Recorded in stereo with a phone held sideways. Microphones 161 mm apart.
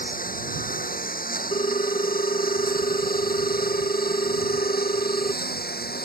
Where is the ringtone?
40° left (ahead or behind).